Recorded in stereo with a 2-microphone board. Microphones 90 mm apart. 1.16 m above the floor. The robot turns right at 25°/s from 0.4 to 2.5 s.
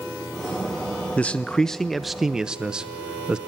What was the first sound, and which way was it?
A man speaking, 160° left.